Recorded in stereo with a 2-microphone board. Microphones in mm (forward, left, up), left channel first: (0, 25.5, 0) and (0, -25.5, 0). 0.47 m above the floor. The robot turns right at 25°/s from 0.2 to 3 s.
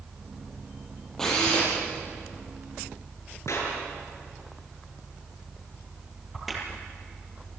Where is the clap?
65° left (ahead or behind), 7 m.